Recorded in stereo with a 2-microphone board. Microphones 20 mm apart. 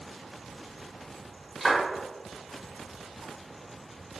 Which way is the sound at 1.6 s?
Centre (ahead or behind).